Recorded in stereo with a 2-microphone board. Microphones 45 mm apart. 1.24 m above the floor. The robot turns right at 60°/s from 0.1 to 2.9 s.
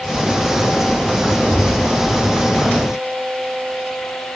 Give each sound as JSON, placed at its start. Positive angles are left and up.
{"t": 1.5, "sound": "a thud", "side_deg": -45, "distance_m": 1.3}